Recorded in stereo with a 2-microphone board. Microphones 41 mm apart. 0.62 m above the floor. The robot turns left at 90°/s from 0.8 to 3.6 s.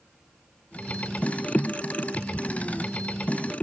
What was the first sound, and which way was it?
Only background noise.